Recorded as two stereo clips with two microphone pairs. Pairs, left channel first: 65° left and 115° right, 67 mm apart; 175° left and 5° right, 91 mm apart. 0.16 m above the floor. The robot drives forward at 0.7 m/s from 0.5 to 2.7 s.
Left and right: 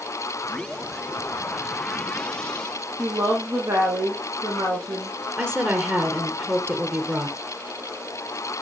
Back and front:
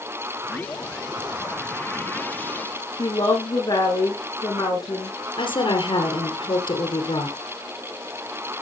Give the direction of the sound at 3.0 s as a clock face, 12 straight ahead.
5 o'clock.